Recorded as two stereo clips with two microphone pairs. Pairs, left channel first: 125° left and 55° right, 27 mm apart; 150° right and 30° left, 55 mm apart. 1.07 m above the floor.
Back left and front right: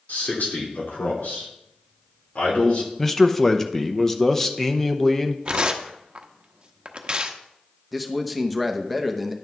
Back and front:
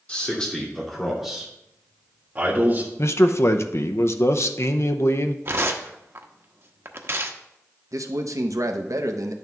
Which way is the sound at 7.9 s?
35° left.